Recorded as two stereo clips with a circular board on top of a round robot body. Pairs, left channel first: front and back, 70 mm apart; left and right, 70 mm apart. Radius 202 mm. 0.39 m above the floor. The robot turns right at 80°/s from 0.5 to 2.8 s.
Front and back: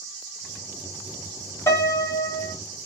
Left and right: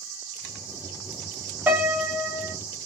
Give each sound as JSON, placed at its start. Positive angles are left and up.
{"t": 1.7, "sound": "a piano", "azimuth_deg": -35, "distance_m": 1.5}